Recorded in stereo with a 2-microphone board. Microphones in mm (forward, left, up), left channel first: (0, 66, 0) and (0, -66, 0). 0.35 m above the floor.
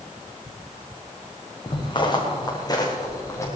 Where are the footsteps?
40° left (ahead or behind), 4.5 m; by 3.5 s 20° left (ahead or behind), 4 m.